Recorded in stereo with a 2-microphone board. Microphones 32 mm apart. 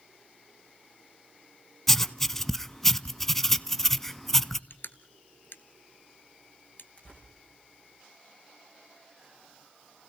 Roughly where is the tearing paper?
Left.